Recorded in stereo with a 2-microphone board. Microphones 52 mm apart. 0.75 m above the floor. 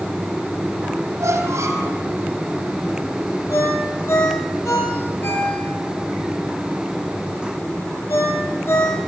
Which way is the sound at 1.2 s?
65° right (ahead or behind).